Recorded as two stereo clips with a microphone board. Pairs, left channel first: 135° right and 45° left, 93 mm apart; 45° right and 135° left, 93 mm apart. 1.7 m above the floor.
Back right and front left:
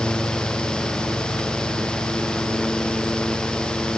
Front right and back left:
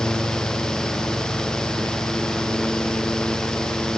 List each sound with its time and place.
Only background noise.